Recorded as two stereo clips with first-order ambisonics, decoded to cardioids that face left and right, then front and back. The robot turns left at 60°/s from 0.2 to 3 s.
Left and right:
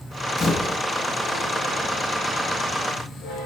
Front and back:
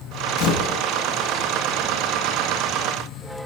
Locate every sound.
0.4 s a camera shutter: 20° left, 4.5 m; by 0.8 s 5° right, 4.5 m